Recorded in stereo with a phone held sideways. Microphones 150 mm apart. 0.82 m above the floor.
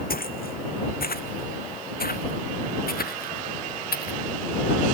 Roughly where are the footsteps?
Left.